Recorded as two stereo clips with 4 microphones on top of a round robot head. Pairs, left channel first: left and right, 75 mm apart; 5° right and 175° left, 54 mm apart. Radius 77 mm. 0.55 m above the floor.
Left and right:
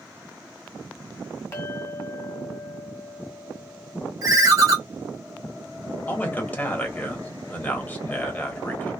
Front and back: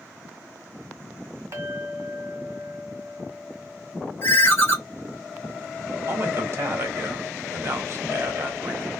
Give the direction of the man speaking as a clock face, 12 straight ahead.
7 o'clock.